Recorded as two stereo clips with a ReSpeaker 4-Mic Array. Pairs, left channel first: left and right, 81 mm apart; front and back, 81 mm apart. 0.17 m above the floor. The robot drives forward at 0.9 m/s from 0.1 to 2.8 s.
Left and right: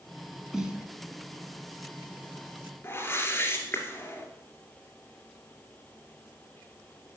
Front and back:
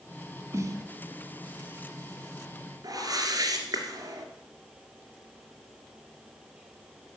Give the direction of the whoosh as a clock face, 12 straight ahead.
7 o'clock.